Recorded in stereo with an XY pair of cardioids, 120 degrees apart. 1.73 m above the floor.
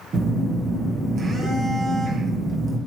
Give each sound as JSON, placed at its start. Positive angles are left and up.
{"t": 0.1, "sound": "a phone buzzing", "azimuth_deg": -40, "distance_m": 2.0}